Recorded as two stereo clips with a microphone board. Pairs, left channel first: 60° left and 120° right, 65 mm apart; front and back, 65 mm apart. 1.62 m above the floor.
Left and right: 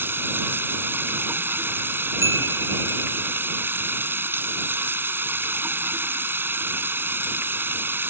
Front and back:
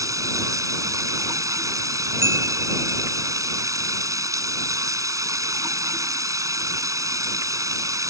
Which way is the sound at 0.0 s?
170° right.